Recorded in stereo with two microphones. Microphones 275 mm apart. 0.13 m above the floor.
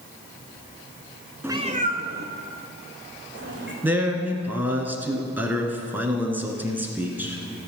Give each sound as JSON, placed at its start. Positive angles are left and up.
{"t": 1.4, "sound": "a cat meowing", "side_deg": -5, "distance_m": 0.5}
{"t": 3.8, "sound": "a man speaking", "side_deg": -5, "distance_m": 1.4}